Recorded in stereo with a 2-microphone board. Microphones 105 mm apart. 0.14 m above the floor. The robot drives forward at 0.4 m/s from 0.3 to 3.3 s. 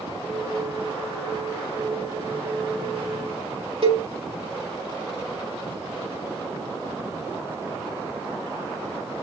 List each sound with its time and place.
3.8 s a cowbell: 65° right (ahead or behind), 4 m